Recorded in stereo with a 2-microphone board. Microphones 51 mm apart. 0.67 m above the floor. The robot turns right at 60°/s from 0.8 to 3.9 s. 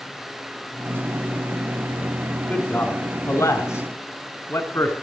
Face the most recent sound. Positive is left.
turn(degrees=65)  # may be behind; listen again after turning